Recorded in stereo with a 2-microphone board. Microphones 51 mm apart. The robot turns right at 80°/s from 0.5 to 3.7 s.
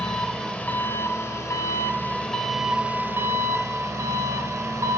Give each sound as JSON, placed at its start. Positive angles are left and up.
{"t": 0.0, "sound": "an engine running", "azimuth_deg": 20, "distance_m": 1.8}